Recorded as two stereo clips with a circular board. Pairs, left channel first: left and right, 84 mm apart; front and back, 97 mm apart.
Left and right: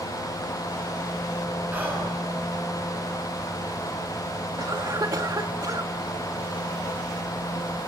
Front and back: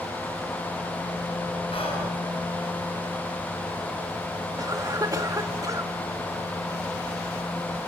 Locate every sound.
1.7 s whispering: 20° right, 9.5 m
4.6 s a cough: 130° right, 1.6 m